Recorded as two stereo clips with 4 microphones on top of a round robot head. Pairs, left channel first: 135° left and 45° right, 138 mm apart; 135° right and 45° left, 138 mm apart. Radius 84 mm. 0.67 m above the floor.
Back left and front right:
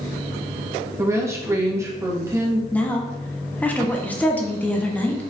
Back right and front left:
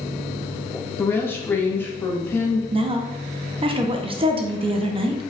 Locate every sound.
1.0 s a woman speaking: 85° right, 0.7 m
2.7 s a woman speaking: 65° left, 0.6 m